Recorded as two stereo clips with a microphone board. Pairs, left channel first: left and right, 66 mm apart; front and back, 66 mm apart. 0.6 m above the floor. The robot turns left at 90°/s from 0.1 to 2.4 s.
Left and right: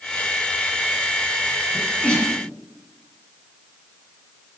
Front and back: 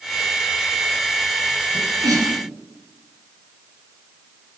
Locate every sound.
1.7 s a sneeze: 165° right, 5.5 m; by 2.3 s 140° left, 5.5 m